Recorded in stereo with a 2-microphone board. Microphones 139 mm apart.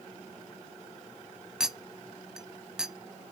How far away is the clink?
About 0.6 m.